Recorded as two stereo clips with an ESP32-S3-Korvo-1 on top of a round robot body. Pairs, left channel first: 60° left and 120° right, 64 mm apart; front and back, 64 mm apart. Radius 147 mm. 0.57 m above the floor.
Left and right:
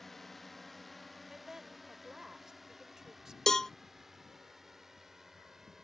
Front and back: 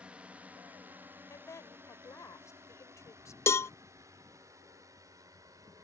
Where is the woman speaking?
35° right.